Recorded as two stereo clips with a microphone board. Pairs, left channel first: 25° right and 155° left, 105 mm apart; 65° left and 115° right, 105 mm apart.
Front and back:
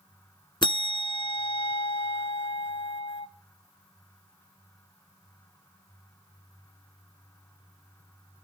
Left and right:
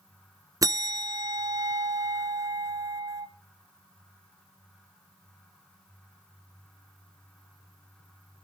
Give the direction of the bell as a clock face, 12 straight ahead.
2 o'clock.